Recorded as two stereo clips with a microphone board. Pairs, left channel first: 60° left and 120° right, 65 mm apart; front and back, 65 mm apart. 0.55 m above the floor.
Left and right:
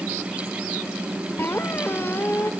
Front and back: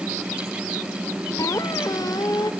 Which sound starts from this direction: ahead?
A squeak, at 1.4 s.